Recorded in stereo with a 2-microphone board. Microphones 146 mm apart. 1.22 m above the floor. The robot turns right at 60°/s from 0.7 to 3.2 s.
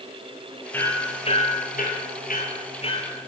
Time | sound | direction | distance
0.7 | hammering | 10° left (ahead or behind) | 7 m